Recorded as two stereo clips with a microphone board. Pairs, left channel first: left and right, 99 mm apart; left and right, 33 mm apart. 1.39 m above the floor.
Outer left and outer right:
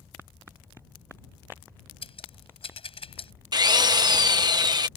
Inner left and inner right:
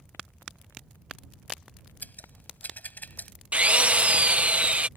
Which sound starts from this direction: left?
Scissors, at 2.0 s.